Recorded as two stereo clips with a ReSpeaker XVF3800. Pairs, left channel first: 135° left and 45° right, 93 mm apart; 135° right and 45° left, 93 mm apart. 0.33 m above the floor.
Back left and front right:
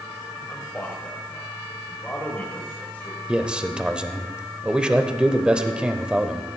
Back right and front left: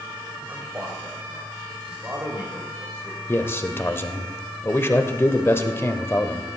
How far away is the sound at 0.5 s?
About 1.6 m.